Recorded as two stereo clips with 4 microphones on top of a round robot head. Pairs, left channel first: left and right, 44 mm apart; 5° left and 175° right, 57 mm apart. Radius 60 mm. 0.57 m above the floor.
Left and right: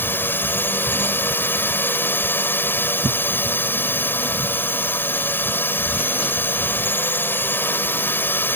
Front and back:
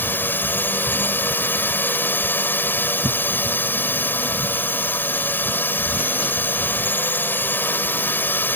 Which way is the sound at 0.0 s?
55° left.